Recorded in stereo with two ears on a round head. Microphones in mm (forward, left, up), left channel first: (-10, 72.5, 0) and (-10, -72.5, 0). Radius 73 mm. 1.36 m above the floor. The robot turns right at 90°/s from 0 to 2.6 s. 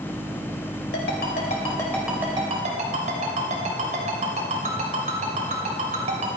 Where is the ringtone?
75° left (ahead or behind), 3 m; by 6.4 s 50° right (ahead or behind), 3 m.